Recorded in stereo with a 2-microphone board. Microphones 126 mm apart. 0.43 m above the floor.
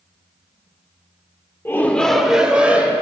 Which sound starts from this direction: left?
A shout, at 1.6 s.